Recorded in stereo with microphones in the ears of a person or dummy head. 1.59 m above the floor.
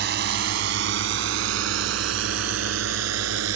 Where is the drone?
60° right (ahead or behind); by 3.6 s 80° right.